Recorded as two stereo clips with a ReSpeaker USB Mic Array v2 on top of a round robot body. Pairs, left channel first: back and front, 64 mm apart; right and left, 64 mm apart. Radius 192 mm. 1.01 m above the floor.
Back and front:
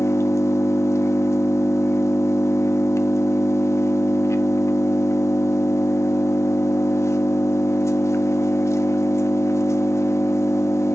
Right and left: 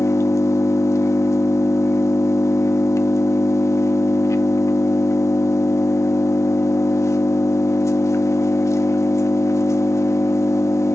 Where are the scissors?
No scissors in this recording.